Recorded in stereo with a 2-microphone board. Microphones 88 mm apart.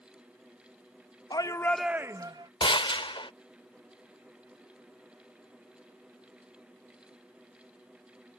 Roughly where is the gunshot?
Left.